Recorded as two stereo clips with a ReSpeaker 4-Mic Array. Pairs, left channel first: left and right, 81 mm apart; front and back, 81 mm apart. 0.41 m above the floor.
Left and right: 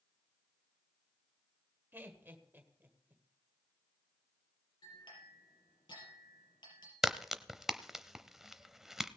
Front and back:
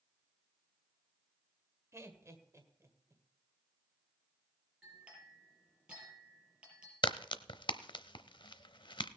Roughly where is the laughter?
Behind right.